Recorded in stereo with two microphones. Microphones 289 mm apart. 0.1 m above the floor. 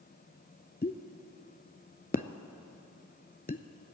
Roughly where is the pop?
Left.